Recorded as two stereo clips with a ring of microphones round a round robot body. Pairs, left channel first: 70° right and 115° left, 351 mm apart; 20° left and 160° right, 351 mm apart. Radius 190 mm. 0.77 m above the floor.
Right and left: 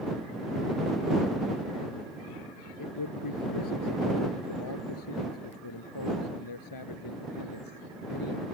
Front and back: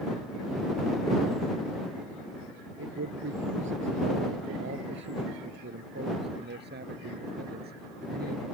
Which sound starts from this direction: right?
A man speaking, at 2.8 s.